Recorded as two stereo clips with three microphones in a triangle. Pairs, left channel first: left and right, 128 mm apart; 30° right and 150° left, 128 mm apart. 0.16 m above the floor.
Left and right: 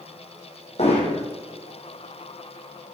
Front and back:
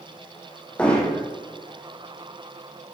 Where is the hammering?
50° left, 2.5 m.